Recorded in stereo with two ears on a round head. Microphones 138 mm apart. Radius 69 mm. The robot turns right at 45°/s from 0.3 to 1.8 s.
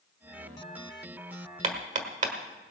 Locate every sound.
1.6 s hammering: 45° right (ahead or behind), 1.4 m; by 2.3 s 50° right (ahead or behind), 1.4 m